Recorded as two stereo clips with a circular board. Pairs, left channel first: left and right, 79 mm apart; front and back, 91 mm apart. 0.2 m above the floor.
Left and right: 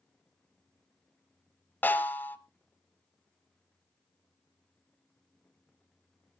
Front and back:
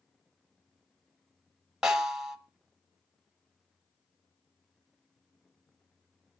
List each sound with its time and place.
1.8 s a snare drum: 110° left, 1.3 m